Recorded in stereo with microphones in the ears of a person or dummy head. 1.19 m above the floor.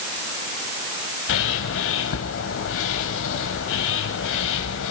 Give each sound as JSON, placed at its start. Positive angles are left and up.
{"t": 1.3, "sound": "a bird", "side_deg": 75, "distance_m": 3.0}